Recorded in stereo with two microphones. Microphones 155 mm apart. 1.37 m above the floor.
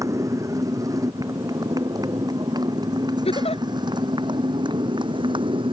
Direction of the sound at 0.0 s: 20° right (ahead or behind).